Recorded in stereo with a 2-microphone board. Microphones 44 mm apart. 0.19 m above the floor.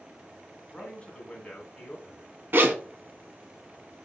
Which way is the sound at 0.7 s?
25° left (ahead or behind).